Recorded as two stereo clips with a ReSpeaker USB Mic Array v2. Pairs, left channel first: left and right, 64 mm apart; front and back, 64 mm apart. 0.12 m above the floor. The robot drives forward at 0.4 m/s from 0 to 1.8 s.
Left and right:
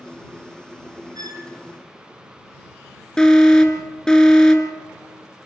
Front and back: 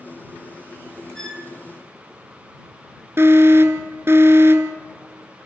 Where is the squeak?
80° right, 1.9 m; by 1.5 s 85° right, 1.9 m.